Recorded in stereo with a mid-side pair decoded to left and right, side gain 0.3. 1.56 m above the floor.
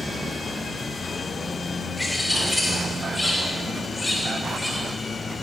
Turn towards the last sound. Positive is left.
turn(degrees=20)